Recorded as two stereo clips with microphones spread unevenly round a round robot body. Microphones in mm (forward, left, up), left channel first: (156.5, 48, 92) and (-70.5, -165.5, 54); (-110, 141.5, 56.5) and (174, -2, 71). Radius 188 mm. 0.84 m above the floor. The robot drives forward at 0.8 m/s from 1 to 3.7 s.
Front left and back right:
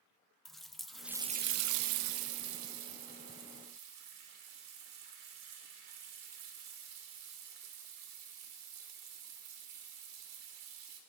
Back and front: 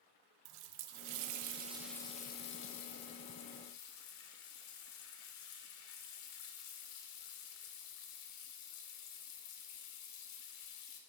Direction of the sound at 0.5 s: 45° right.